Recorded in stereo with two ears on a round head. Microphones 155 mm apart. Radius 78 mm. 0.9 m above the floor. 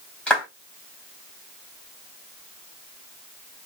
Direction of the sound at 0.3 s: 5° left (ahead or behind).